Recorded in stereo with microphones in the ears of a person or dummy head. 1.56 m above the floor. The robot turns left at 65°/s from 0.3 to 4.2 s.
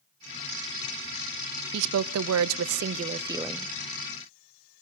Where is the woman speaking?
60° right, 0.5 m; by 3.7 s 170° left, 0.5 m.